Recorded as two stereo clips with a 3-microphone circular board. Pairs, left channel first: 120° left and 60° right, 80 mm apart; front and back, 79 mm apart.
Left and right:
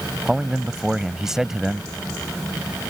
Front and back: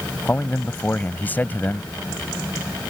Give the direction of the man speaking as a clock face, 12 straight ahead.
11 o'clock.